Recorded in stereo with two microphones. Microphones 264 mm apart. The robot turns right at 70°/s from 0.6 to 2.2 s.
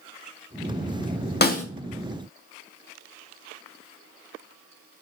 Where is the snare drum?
35° left (ahead or behind), 0.7 m; by 1.6 s 25° left (ahead or behind), 0.7 m.